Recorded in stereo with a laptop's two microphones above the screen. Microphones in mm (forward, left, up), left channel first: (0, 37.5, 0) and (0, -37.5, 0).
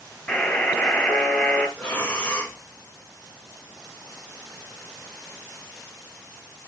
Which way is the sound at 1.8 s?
20° left (ahead or behind).